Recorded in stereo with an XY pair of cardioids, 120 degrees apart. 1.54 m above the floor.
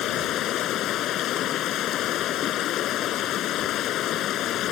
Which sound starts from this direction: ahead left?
Running water, at 0.0 s.